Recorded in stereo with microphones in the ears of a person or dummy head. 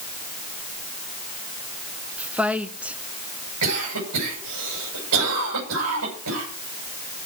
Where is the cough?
85° right, 10 m.